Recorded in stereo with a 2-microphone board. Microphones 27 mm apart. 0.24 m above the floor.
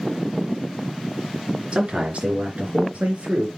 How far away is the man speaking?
About 3.5 m.